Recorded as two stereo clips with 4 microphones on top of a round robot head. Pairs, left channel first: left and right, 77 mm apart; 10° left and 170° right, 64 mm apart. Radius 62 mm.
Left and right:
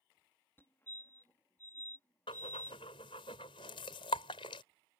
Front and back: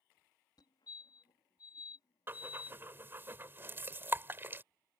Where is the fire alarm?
25° left.